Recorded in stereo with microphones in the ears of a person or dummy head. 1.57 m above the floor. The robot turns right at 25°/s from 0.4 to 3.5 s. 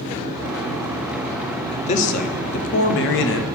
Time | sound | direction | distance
1.7 | a man speaking | 40° left | 0.8 m